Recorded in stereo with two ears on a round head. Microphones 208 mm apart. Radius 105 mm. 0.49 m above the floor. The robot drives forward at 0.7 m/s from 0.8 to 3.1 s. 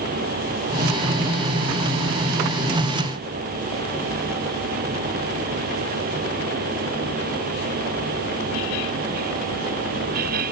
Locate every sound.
Only background noise.